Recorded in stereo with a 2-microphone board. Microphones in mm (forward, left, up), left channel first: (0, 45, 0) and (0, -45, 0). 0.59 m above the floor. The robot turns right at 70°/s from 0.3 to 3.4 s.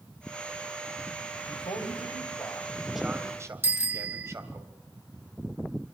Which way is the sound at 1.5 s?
75° left.